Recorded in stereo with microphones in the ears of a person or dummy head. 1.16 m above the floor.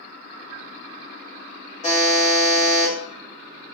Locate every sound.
1.8 s a buzzer: 30° left (ahead or behind), 1.0 m